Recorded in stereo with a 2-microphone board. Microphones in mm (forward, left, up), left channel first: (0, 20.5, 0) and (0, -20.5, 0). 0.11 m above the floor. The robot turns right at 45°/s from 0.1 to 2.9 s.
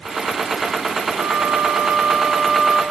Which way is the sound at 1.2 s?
70° right.